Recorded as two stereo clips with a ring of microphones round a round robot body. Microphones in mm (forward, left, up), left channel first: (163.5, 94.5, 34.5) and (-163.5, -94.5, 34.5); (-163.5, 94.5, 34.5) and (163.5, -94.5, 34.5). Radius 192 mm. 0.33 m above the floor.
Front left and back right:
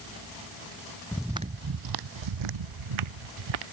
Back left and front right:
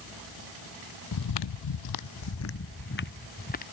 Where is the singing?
No singing in this recording.